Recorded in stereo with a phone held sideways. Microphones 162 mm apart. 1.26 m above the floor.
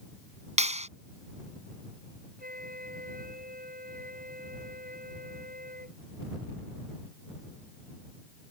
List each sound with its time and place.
0.6 s a clap: 45° right (ahead or behind)
2.4 s a flute: 70° right (ahead or behind)